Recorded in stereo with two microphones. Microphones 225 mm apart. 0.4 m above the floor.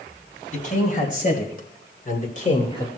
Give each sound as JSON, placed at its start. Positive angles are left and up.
{"t": 0.5, "sound": "a man speaking", "side_deg": 35, "distance_m": 3.0}